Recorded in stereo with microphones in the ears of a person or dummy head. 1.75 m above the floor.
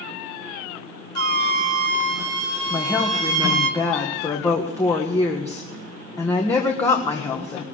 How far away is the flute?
About 1.8 m.